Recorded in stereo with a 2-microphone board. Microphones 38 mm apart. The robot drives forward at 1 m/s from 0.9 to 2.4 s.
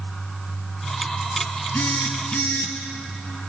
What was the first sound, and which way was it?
A phone buzzing, 65° left (ahead or behind).